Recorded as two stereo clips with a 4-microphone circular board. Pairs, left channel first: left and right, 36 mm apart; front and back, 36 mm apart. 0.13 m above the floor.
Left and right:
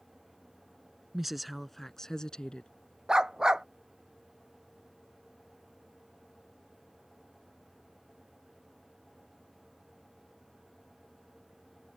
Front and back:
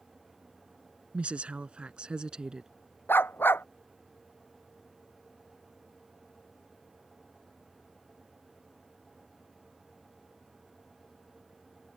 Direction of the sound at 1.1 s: 165° right.